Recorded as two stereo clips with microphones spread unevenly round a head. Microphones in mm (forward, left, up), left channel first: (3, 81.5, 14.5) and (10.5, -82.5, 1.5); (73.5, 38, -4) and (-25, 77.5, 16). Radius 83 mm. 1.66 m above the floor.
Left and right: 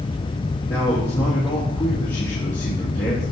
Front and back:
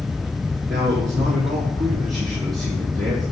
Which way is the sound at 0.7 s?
170° left.